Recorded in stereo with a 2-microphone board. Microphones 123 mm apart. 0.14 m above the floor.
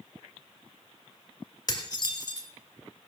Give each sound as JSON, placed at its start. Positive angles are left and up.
{"t": 1.7, "sound": "dishes clattering", "side_deg": 35, "distance_m": 1.5}